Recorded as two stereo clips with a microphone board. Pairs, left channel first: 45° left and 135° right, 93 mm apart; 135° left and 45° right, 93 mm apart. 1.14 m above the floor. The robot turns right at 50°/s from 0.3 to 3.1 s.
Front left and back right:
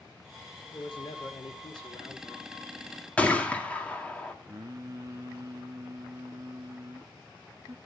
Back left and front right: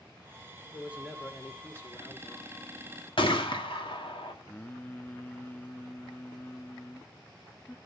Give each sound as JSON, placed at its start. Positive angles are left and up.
{"t": 0.7, "sound": "a man speaking", "azimuth_deg": 20, "distance_m": 3.5}
{"t": 3.2, "sound": "a gunshot", "azimuth_deg": 120, "distance_m": 2.0}
{"t": 4.5, "sound": "singing", "azimuth_deg": -160, "distance_m": 0.7}